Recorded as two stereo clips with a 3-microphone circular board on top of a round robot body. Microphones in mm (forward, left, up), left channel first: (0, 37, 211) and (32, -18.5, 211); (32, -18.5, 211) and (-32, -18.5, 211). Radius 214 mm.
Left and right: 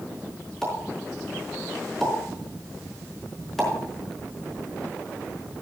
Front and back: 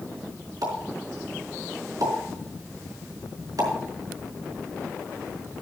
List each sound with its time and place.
0.6 s a pop: 155° right, 4.5 m